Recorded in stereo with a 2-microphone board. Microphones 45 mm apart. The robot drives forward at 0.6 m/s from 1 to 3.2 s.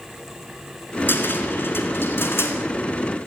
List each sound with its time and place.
1.1 s a cupboard door: 55° left (ahead or behind), 4 m; by 2.6 s 65° left (ahead or behind), 3.5 m